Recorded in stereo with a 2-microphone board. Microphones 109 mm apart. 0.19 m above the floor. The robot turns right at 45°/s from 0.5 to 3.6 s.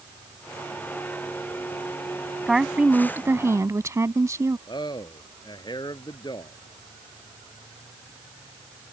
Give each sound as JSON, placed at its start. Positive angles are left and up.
{"t": 2.5, "sound": "a woman speaking", "azimuth_deg": -175}
{"t": 4.7, "sound": "a man speaking", "side_deg": 45}